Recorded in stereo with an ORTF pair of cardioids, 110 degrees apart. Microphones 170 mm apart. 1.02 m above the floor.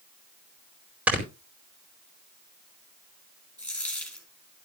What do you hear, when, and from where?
1.1 s snoring: 10° right, 4.5 m
3.6 s a dropped coin: 5° left, 6 m